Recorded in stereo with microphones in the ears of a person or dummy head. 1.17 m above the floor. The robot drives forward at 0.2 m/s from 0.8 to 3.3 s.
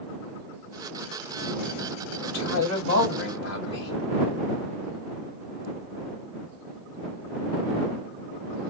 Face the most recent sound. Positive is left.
turn(degrees=60)  # may be behind; listen again after turning